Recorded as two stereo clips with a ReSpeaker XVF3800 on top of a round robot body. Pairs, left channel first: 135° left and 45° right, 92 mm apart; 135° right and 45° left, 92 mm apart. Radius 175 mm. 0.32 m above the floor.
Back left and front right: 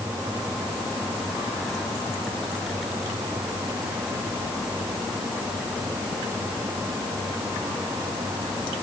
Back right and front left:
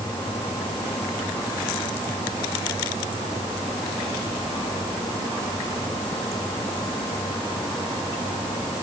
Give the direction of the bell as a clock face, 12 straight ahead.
I don't hear a bell.